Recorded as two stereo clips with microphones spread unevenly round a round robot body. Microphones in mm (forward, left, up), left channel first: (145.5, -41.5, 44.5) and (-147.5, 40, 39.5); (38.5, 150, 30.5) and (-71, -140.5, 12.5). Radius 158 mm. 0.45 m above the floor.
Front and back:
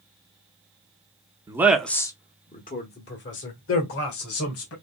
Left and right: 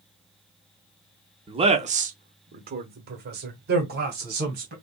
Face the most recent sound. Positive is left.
turn(degrees=-55)